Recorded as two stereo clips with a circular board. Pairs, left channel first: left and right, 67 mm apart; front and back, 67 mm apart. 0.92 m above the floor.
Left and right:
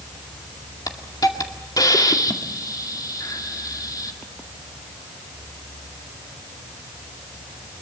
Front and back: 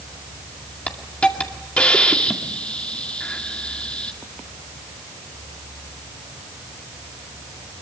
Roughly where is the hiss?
Left.